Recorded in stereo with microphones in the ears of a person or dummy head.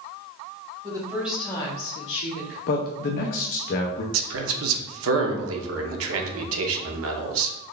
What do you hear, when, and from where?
0.8 s a woman speaking: 25° right (ahead or behind), 1.5 m; by 2.6 s 80° left, 1.4 m
2.7 s a man speaking: 45° left (ahead or behind), 0.5 m
4.1 s a man speaking: 70° right (ahead or behind), 0.7 m